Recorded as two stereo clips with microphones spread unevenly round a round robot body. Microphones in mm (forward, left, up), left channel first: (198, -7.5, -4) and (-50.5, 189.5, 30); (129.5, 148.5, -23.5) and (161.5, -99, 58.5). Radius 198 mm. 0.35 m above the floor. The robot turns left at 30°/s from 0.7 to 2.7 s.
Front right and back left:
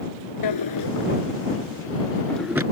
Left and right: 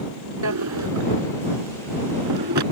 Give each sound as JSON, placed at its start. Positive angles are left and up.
{"t": 0.4, "sound": "a drawer", "azimuth_deg": -75}